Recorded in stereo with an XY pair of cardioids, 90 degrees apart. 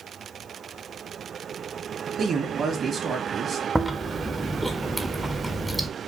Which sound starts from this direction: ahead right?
A man speaking, at 2.2 s.